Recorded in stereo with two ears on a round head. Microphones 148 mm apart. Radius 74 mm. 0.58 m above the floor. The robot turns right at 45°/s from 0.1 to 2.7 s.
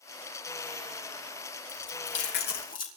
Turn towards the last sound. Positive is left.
turn(degrees=55)  # may be behind; listen again after turning